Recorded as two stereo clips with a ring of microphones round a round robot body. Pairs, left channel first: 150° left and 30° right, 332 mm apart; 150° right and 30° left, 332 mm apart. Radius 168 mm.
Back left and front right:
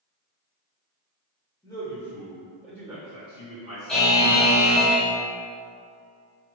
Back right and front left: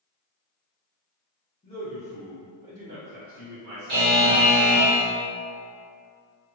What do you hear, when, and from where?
1.6 s a man speaking: 160° right, 1.2 m; by 4.2 s 30° left, 1.5 m
3.9 s a buzzer: 65° left, 1.4 m